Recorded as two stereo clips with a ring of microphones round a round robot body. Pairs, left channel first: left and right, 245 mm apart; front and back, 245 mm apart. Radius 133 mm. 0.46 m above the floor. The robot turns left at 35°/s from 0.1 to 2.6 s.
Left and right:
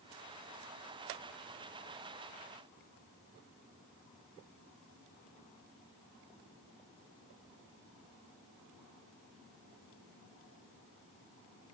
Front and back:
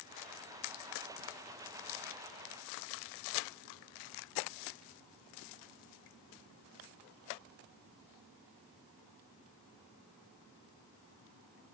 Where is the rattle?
I don't hear a rattle.